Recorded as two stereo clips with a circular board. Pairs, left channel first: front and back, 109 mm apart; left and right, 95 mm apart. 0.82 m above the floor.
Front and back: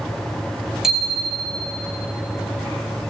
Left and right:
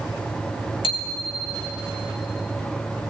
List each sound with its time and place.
0.8 s a bicycle bell: 95° left, 2.5 m